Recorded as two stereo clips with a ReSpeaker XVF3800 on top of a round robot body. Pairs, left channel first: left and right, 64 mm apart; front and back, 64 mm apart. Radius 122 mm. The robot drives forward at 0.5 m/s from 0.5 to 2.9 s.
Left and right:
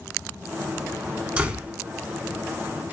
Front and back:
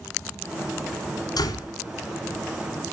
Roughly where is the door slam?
Ahead.